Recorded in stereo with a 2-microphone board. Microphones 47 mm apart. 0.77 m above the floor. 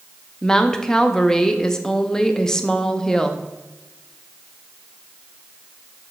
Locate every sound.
0.4 s a woman speaking: 10° left (ahead or behind), 0.7 m